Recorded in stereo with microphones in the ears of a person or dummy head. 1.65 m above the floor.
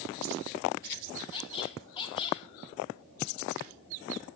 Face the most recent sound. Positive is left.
turn(degrees=25)  # may be behind; listen again after turning